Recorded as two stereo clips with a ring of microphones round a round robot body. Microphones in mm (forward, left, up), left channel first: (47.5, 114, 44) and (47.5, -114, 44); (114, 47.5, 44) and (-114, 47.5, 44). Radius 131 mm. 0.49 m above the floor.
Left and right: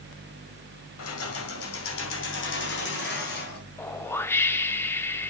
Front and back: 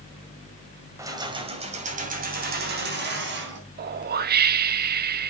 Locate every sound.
1.0 s keys jangling: 105° left, 2.5 m; by 3.6 s 145° left, 4 m
3.8 s a whoosh: 165° left, 0.6 m